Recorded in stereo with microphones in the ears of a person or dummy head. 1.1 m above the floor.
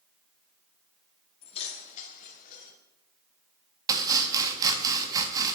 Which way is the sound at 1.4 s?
30° left (ahead or behind).